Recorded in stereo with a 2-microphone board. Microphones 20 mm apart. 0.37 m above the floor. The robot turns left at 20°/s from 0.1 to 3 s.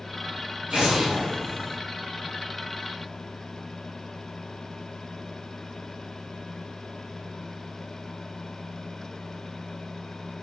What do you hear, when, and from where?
0.7 s an explosion: 65° right (ahead or behind), 2 m; by 1.8 s 45° right (ahead or behind), 2 m